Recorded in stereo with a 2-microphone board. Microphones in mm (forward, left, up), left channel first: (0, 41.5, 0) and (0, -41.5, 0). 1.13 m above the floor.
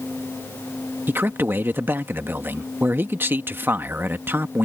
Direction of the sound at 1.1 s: 25° right (ahead or behind).